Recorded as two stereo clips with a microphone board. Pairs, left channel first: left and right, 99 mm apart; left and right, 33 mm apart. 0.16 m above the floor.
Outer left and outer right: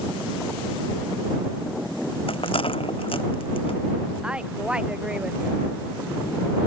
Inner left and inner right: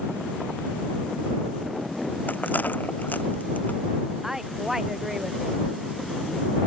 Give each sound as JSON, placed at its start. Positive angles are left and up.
{"t": 2.3, "sound": "a rattle", "side_deg": 65}
{"t": 4.2, "sound": "a woman speaking", "side_deg": -10}